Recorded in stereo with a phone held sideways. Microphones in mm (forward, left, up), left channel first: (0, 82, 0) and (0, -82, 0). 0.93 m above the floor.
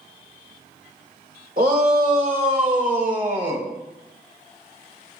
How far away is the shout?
About 3 m.